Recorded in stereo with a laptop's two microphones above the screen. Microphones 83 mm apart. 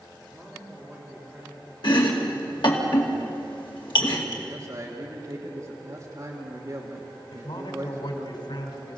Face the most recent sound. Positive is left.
turn(degrees=75)  # may be behind; listen again after turning